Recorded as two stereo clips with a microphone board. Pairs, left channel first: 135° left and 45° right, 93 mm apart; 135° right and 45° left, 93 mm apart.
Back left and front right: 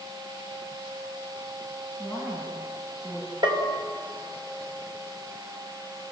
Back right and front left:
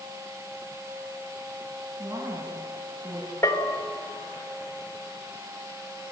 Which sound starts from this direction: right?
A bell, at 3.4 s.